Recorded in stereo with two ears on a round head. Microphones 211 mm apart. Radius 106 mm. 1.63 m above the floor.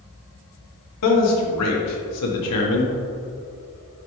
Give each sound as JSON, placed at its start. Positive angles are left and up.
{"t": 1.0, "sound": "a man speaking", "side_deg": 75, "distance_m": 1.3}